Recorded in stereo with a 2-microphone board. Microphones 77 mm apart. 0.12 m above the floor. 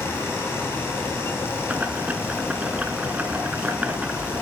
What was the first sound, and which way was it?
Boiling, 20° right (ahead or behind).